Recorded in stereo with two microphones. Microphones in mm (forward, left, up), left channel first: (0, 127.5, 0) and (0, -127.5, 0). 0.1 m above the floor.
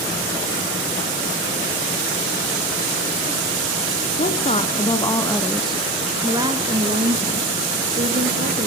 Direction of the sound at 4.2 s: 30° left (ahead or behind).